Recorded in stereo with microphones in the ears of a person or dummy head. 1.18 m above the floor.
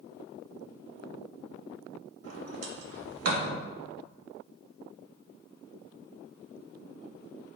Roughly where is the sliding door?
Right.